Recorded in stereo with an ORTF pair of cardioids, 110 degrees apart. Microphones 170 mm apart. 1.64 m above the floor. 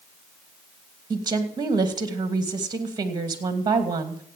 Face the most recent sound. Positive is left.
turn(degrees=-25)